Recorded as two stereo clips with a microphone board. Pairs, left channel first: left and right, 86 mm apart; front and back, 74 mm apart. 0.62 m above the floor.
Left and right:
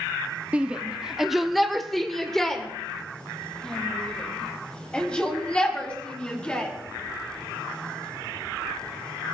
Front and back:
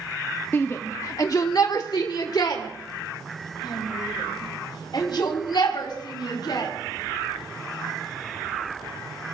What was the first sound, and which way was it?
A shout, 30° right.